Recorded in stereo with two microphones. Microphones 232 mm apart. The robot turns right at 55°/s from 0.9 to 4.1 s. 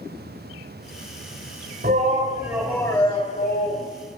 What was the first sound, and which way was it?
A shout, 45° right.